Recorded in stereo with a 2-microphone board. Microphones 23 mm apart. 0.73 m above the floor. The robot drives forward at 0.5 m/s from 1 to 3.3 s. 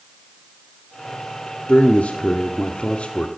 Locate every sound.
1.7 s a man speaking: 65° left (ahead or behind), 1.4 m; by 3.3 s 50° left (ahead or behind), 1.6 m